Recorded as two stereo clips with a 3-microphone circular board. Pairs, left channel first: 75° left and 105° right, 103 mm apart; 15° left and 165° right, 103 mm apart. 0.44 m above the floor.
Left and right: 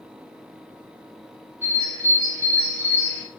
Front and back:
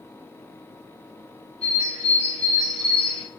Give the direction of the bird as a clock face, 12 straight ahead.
12 o'clock.